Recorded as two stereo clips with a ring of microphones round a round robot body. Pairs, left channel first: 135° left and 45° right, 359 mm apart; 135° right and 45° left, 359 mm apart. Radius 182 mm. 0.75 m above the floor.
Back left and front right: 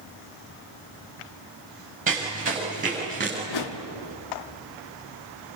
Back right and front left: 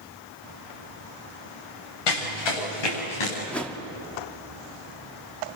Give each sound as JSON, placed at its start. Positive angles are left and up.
{"t": 2.1, "sound": "running footsteps", "azimuth_deg": -115, "distance_m": 8.5}
{"t": 3.5, "sound": "a whoosh", "azimuth_deg": 140, "distance_m": 1.7}